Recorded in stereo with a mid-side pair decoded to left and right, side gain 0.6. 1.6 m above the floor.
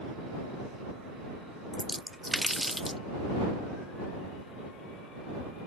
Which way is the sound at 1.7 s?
Straight ahead.